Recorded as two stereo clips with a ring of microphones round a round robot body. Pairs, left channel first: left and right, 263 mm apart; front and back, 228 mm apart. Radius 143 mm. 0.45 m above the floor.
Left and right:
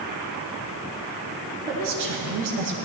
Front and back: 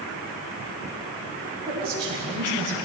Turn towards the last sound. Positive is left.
turn(degrees=-120)